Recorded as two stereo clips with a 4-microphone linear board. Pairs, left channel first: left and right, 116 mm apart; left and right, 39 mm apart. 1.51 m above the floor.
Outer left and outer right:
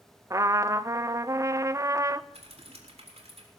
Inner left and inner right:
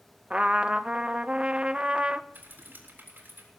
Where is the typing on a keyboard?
60° right (ahead or behind), 3.5 m.